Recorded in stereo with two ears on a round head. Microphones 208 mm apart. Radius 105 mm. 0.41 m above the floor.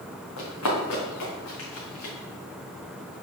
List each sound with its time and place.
0.4 s running footsteps: 75° left (ahead or behind), 2.5 m; by 2.1 s 65° left (ahead or behind), 3.5 m